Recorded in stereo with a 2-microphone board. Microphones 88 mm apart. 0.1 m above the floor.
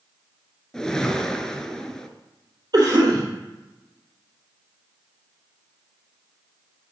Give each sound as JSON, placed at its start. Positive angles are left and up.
{"t": 0.7, "sound": "a whoosh", "side_deg": 5, "distance_m": 0.6}
{"t": 2.7, "sound": "a cough", "side_deg": -50, "distance_m": 3.5}